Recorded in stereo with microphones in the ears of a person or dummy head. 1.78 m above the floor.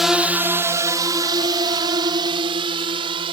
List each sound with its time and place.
0.0 s a drone: 5° right (ahead or behind); by 3.3 s 30° right (ahead or behind)